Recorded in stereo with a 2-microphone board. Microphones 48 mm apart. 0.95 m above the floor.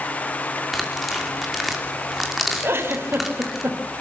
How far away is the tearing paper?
About 3 m.